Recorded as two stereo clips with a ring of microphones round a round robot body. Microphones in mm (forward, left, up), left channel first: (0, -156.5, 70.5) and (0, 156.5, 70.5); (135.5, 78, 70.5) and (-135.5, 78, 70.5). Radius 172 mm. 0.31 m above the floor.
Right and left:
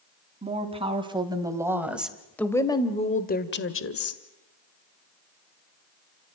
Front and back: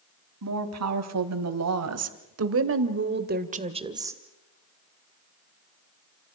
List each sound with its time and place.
0.4 s a woman speaking: 160° left, 3.5 m; by 4.2 s 100° right, 1.9 m